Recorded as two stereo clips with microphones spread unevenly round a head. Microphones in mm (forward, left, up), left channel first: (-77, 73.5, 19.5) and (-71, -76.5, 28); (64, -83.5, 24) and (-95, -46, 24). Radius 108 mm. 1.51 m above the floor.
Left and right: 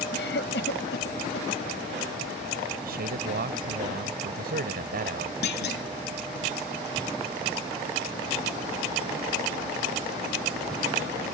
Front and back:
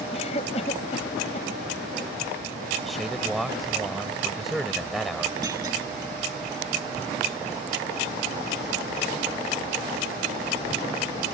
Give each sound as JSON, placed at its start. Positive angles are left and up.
{"t": 0.1, "sound": "a cough", "azimuth_deg": 50}
{"t": 2.8, "sound": "a man speaking", "azimuth_deg": -105}
{"t": 5.4, "sound": "a clunk", "azimuth_deg": 90}